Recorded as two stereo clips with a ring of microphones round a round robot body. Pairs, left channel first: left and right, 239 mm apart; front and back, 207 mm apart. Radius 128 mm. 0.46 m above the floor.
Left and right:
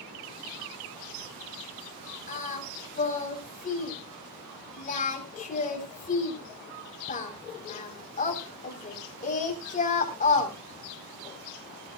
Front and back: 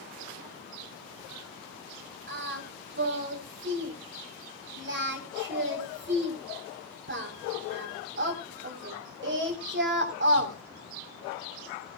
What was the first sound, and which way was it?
Singing, 145° left.